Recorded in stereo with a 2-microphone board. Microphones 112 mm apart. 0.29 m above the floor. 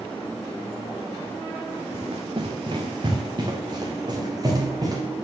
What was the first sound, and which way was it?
Running footsteps, 55° right (ahead or behind).